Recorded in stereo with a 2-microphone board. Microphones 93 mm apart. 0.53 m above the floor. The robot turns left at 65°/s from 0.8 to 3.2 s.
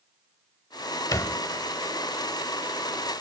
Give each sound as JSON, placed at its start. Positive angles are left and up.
{"t": 1.1, "sound": "a thud", "side_deg": 40, "distance_m": 0.7}